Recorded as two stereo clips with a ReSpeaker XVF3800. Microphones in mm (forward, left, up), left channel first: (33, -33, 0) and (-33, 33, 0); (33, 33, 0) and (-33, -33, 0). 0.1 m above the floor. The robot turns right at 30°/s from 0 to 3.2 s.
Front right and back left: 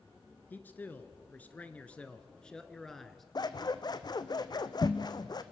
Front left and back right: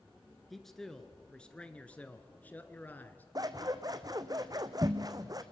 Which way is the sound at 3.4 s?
90° right.